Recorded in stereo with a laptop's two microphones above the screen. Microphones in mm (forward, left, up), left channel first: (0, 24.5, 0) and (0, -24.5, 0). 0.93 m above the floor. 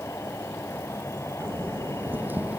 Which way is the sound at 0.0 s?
80° left.